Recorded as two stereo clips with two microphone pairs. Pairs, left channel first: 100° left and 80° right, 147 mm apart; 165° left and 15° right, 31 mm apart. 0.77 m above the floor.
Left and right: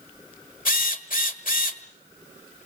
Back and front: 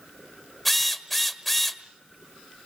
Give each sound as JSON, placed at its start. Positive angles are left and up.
{"t": 0.7, "sound": "a drill", "azimuth_deg": 80, "distance_m": 1.6}